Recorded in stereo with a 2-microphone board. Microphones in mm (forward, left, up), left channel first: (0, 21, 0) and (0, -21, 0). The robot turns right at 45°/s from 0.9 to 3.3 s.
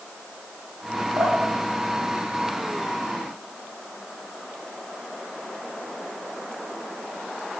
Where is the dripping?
75° right (ahead or behind), 4 m; by 3.0 s 10° left (ahead or behind), 4 m.